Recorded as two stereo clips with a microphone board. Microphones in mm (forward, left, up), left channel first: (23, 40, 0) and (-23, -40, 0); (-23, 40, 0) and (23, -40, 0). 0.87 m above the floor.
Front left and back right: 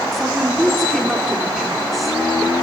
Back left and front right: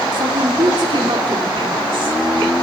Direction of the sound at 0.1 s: 30° right.